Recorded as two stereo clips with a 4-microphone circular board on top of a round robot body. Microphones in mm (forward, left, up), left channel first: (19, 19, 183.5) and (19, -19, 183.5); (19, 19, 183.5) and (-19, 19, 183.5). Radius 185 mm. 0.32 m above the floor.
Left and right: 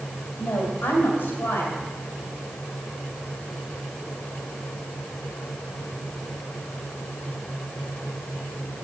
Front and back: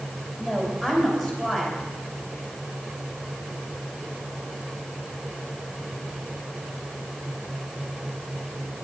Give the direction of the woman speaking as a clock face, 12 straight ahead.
9 o'clock.